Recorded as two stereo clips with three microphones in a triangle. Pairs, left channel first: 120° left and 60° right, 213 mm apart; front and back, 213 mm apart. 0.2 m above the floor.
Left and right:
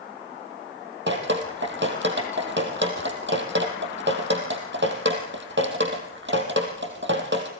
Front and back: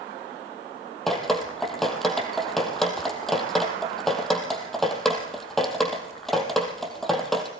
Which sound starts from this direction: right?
Dripping, at 1.1 s.